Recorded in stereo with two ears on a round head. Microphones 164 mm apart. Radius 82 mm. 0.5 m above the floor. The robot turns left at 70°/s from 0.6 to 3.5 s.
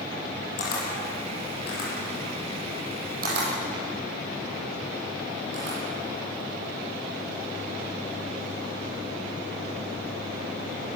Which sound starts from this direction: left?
A camera shutter, at 0.6 s.